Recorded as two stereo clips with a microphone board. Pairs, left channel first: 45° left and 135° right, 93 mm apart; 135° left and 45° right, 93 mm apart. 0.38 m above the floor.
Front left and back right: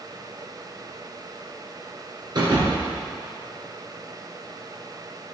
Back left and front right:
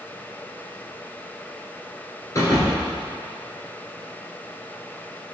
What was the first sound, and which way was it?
A thud, 175° right.